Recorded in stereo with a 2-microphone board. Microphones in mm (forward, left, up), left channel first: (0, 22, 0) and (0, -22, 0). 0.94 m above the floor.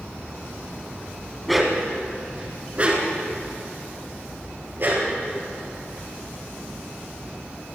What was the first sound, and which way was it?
A dog barking, centre (ahead or behind).